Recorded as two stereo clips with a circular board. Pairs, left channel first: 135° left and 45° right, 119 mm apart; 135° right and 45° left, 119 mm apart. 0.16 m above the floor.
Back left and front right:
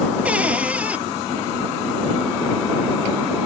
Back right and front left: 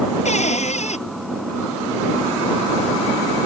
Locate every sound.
0.2 s a cupboard door: 125° right